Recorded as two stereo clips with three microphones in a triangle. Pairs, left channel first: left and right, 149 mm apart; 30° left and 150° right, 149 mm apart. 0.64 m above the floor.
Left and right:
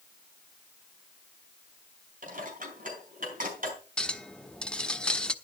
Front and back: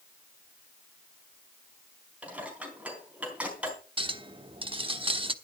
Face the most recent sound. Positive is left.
turn(degrees=170)